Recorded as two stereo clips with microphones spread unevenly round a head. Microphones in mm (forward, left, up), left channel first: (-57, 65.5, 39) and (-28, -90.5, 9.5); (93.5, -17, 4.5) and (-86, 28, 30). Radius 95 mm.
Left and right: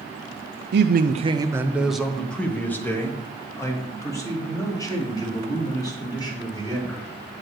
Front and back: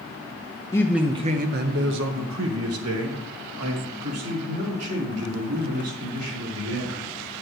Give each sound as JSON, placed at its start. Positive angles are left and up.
{"t": 0.7, "sound": "a man speaking", "azimuth_deg": -90, "distance_m": 0.5}